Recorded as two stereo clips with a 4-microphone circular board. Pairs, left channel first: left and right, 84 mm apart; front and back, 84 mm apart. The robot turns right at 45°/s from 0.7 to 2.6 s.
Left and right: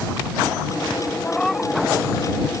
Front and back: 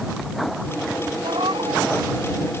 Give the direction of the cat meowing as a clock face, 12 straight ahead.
7 o'clock.